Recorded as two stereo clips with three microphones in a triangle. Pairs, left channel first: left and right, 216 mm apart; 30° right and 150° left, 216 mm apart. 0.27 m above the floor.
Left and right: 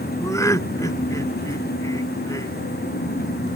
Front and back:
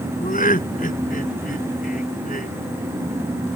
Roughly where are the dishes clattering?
No dishes clattering in this recording.